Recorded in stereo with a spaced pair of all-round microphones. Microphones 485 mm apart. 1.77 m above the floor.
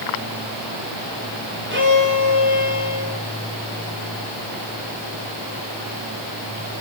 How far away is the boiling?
I don't hear boiling.